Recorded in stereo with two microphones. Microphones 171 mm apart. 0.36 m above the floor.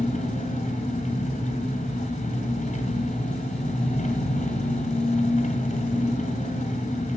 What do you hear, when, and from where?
0.0 s an engine running: 45° left (ahead or behind), 2.5 m